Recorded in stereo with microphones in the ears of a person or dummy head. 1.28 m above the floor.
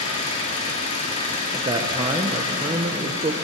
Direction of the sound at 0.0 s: 35° left (ahead or behind).